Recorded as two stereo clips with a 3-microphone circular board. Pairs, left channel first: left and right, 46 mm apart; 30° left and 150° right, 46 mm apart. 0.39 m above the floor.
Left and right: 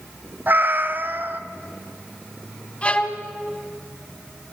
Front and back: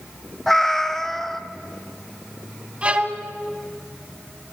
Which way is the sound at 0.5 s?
50° right.